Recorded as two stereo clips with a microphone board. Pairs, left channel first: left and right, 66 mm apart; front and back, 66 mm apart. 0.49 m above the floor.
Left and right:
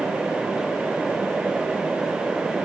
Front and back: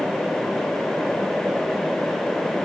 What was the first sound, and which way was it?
Only background noise.